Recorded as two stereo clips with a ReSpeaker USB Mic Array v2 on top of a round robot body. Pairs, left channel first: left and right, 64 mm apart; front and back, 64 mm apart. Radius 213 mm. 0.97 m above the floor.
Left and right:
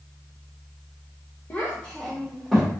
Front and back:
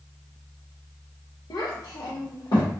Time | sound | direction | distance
1.5 | a child speaking | 30° left | 0.5 m